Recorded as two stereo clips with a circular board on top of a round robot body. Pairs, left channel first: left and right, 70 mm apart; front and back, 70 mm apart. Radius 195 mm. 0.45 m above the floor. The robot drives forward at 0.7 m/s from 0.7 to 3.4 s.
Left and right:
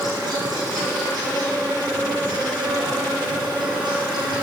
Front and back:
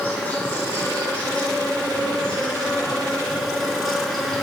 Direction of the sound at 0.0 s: 70° right.